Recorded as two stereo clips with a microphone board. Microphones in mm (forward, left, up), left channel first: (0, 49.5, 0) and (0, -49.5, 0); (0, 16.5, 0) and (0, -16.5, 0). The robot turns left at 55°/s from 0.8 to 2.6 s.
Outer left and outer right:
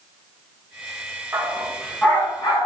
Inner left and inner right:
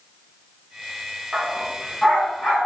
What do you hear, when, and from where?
1.3 s a dog barking: 25° right (ahead or behind), 5 m; by 2.7 s 45° left (ahead or behind), 5 m